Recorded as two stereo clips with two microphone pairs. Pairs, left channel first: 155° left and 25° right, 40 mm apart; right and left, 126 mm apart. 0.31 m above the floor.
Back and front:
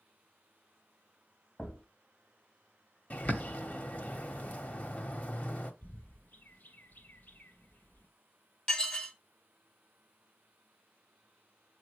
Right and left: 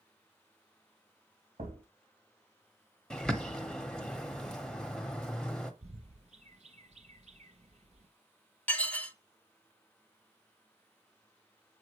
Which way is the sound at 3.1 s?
175° right.